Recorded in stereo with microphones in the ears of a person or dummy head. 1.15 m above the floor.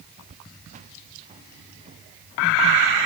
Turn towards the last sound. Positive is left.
turn(degrees=-30)  # may be behind; listen again after turning